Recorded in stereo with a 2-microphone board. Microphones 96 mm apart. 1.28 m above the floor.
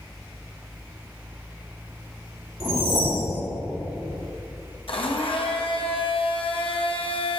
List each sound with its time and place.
2.6 s a whoosh: 75° right (ahead or behind), 2.0 m
4.9 s a blender: 65° left (ahead or behind), 0.9 m